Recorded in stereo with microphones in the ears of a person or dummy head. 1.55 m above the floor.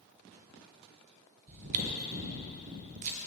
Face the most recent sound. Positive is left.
turn(degrees=-45)  # may be behind; listen again after turning